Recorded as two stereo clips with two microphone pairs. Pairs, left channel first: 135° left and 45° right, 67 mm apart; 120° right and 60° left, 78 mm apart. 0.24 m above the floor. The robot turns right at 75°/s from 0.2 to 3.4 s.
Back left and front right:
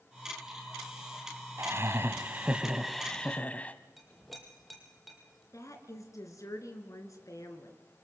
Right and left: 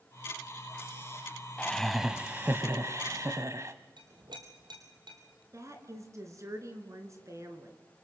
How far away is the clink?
About 4 m.